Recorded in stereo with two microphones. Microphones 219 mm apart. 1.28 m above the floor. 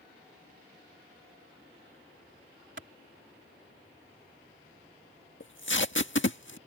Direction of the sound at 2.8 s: 60° right (ahead or behind).